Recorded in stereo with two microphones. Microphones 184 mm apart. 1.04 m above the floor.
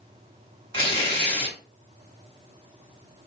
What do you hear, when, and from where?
0.7 s tearing paper: 30° left (ahead or behind), 1.2 m